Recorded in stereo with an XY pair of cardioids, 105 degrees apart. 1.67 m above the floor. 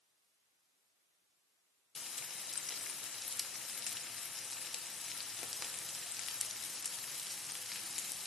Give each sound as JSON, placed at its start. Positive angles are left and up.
{"t": 1.9, "sound": "frying", "azimuth_deg": 35, "distance_m": 0.5}